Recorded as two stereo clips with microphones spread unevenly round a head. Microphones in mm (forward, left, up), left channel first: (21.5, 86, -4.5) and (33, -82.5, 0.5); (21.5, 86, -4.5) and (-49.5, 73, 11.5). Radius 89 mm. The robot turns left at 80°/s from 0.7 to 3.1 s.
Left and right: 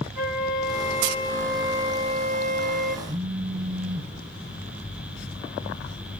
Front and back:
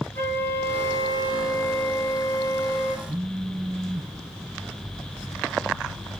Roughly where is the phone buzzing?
Behind right.